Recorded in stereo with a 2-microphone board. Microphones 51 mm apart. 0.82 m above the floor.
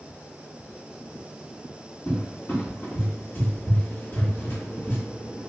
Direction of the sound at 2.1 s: 40° left (ahead or behind).